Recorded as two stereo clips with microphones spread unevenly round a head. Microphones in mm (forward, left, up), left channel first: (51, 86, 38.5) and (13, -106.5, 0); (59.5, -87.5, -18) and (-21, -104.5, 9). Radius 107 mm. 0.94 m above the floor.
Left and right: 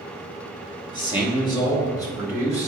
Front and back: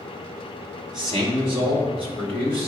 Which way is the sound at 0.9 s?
150° left.